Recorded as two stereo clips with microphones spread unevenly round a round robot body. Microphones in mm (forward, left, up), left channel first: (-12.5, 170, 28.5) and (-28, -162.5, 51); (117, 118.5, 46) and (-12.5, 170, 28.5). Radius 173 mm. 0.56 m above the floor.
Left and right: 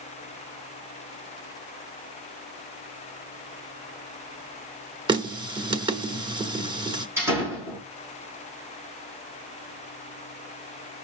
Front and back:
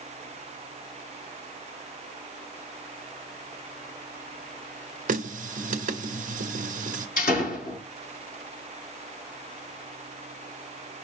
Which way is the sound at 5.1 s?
170° right.